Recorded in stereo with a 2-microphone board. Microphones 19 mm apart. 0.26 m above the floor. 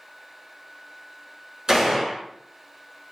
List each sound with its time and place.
1.7 s a gunshot: 35° right (ahead or behind), 1.3 m